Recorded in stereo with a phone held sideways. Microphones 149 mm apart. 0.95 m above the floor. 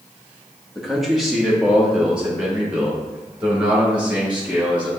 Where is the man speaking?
Centre (ahead or behind), 1.5 m; by 4.9 s 10° right (ahead or behind), 5 m.